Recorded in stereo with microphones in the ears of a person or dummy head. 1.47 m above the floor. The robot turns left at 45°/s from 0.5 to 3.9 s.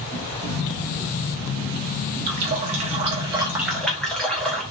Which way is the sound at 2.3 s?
115° right.